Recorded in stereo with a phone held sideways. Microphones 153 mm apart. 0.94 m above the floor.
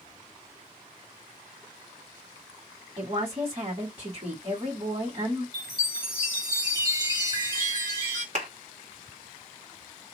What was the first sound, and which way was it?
A woman speaking, 40° right (ahead or behind).